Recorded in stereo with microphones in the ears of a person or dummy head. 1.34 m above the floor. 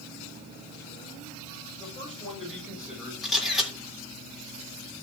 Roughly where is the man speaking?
Centre.